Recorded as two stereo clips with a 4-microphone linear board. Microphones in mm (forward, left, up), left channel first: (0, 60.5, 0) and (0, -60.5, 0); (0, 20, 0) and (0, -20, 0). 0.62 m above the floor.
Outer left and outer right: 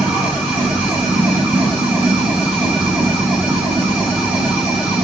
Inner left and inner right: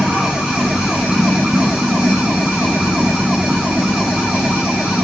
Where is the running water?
15° right (ahead or behind), 3.5 m.